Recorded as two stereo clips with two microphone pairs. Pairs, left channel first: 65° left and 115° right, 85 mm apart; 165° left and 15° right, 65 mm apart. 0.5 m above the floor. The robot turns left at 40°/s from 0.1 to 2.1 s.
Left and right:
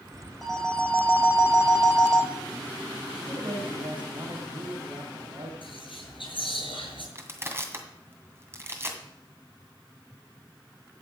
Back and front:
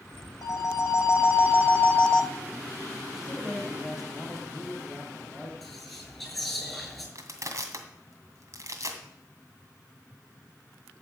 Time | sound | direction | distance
0.4 | a phone ringing | 160° left | 1.9 m
3.1 | a man speaking | 95° right | 3 m
5.6 | whispering | 80° left | 7 m
7.2 | crushing | 50° right | 2 m